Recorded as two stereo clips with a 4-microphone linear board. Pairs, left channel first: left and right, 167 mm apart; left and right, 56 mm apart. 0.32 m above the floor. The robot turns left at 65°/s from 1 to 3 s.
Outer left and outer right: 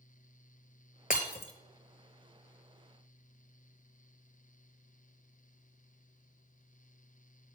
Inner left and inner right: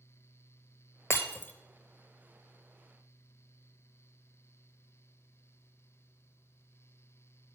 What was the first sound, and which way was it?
Breaking glass, 55° left (ahead or behind).